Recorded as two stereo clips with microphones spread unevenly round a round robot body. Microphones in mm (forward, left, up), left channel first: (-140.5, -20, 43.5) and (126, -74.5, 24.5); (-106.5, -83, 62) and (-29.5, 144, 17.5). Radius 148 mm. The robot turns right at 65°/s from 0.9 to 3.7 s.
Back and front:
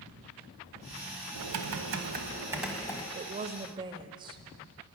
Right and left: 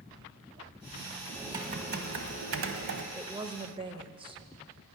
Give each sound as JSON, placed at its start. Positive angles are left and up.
{"t": 1.4, "sound": "typing on a keyboard", "azimuth_deg": -10, "distance_m": 1.2}
{"t": 3.1, "sound": "a woman speaking", "azimuth_deg": 5, "distance_m": 1.0}